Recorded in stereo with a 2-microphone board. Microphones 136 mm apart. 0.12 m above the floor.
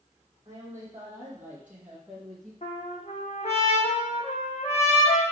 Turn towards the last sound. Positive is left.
turn(degrees=55)  # may be behind; listen again after turning